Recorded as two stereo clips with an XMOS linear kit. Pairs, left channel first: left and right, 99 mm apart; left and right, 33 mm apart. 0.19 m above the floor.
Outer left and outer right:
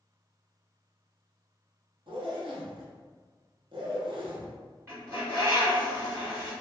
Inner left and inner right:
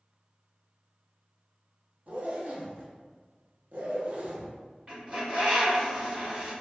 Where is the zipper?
65° right (ahead or behind), 0.7 m.